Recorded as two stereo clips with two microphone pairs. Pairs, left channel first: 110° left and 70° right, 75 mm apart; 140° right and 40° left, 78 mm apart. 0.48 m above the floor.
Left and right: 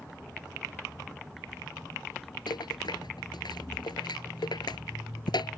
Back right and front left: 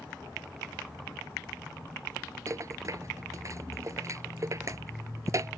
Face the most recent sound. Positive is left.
turn(degrees=90)